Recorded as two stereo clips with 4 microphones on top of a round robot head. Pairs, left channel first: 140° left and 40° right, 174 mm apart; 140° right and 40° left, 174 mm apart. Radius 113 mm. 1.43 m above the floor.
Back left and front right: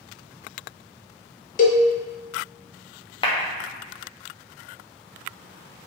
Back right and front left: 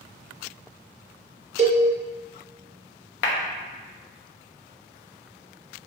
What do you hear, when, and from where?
1.6 s a cowbell: 95° left, 0.6 m
3.2 s a clap: 160° right, 0.6 m